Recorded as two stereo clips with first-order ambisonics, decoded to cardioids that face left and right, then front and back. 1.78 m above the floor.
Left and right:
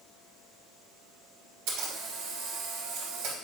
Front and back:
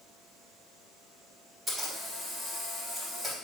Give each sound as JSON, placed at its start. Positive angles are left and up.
{"t": 1.7, "sound": "a camera shutter", "azimuth_deg": -100, "distance_m": 3.5}